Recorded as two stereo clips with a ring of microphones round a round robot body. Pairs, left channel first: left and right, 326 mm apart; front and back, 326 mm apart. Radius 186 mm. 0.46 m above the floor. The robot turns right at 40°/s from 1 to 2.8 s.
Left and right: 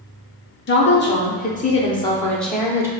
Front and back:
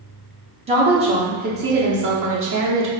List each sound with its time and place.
0.7 s a woman speaking: 120° left, 0.8 m; by 2.9 s 170° right, 0.8 m